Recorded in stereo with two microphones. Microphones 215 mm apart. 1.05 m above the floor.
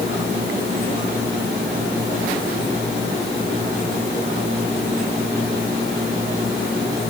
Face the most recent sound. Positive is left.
No sound to turn to.